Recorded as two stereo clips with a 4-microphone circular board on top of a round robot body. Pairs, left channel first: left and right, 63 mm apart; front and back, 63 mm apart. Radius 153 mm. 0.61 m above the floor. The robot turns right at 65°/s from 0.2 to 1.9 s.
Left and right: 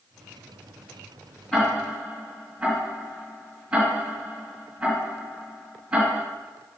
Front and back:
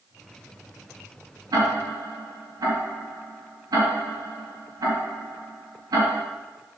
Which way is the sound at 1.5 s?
165° left.